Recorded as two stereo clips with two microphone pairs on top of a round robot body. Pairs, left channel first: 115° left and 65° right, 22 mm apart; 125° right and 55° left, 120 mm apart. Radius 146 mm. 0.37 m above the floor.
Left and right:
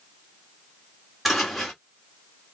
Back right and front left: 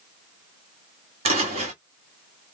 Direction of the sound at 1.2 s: 15° left.